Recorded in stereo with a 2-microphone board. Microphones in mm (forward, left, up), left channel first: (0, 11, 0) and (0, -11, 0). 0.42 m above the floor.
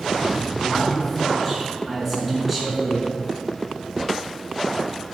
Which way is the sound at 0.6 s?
5° left (ahead or behind).